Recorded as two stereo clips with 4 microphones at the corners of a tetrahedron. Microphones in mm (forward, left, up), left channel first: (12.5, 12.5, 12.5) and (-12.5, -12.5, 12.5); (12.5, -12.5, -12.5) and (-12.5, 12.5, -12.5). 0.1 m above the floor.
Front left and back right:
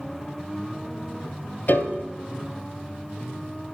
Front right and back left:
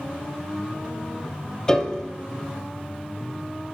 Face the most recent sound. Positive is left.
turn(degrees=25)